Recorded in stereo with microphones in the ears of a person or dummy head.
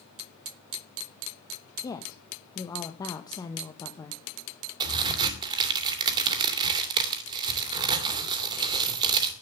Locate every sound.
1.8 s a woman speaking: 20° left (ahead or behind), 1.2 m
4.8 s a crack: 25° right (ahead or behind), 2.5 m